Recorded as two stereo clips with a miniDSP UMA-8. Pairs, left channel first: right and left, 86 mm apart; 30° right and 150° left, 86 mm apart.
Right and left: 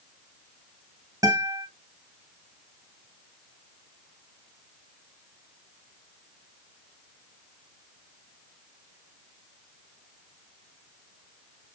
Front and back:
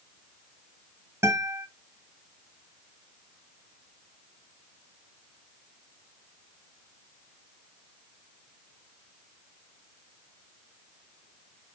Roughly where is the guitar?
Left.